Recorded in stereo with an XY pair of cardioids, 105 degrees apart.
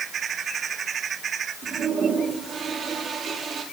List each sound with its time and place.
1.6 s a toilet flushing: 55° right, 5 m